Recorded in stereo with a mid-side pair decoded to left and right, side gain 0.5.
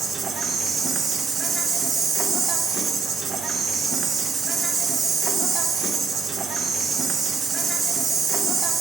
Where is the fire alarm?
I don't hear a fire alarm.